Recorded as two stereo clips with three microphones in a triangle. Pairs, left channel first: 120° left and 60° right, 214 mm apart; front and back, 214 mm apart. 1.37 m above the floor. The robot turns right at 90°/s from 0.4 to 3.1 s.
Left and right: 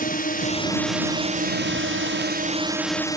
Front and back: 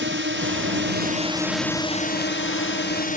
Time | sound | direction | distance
0.0 | a drone | 165° left | ?